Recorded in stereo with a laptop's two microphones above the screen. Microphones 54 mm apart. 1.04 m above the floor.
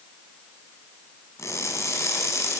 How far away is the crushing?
About 5.5 m.